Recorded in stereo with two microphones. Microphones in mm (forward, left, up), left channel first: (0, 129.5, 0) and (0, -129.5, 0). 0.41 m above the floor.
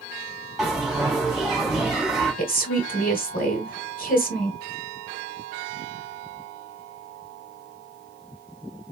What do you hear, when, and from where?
0.6 s a bell: centre (ahead or behind), 2.5 m
2.4 s a woman speaking: 35° left (ahead or behind), 1.4 m